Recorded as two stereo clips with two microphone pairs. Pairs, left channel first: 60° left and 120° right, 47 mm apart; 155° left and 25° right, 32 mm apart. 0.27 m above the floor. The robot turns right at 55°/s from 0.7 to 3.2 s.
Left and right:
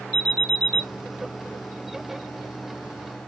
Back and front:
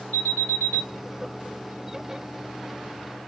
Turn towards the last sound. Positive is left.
turn(degrees=-40)